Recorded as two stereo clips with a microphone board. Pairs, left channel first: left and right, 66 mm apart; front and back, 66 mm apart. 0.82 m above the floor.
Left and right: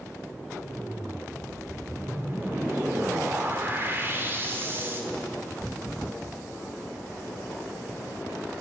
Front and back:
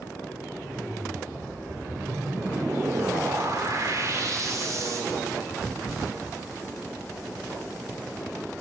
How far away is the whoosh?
About 3 m.